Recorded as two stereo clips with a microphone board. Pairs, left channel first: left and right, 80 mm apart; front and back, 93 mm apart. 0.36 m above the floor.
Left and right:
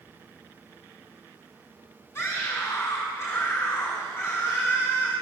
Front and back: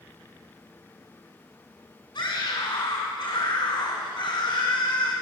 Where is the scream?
35° left, 3.5 m.